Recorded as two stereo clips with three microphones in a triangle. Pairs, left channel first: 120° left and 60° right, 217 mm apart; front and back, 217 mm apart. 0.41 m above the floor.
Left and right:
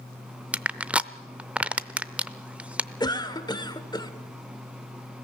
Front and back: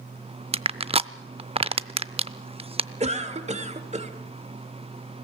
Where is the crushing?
140° right, 0.5 m.